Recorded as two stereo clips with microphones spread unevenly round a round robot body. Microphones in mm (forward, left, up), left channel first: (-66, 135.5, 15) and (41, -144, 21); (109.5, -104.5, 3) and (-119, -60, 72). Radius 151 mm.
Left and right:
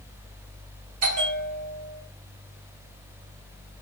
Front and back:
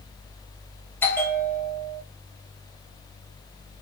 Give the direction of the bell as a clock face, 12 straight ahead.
2 o'clock.